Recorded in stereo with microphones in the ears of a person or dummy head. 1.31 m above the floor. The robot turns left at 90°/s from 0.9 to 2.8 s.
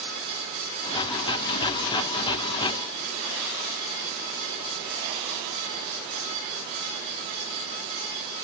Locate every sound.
Only background noise.